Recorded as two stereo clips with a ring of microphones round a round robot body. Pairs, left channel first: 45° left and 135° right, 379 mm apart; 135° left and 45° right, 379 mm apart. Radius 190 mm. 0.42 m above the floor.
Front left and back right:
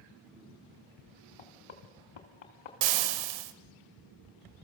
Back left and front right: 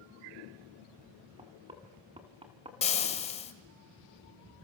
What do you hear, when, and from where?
1.4 s knocking: 30° left, 2.5 m
2.8 s frying: 155° right, 1.5 m